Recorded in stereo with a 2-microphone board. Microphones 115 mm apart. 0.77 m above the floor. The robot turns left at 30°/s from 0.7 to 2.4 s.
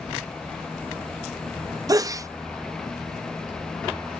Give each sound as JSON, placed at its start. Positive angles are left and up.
{"t": 1.9, "sound": "a sneeze", "side_deg": -30}